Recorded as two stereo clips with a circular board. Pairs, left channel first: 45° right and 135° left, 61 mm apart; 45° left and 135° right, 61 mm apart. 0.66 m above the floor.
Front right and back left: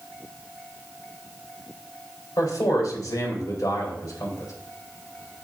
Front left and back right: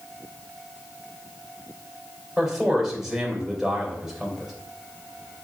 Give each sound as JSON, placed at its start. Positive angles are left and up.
{"t": 2.4, "sound": "a man speaking", "azimuth_deg": -45, "distance_m": 3.0}